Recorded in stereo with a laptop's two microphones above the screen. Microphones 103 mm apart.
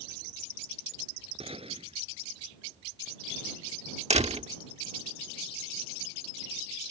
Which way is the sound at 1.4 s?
60° right (ahead or behind).